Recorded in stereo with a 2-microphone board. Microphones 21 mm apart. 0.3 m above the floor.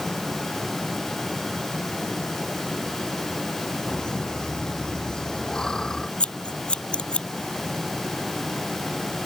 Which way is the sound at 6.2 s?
75° left (ahead or behind).